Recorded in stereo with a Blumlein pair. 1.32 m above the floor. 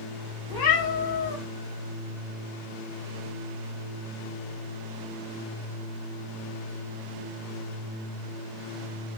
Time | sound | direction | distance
0.5 | a cat meowing | 50° left | 3 m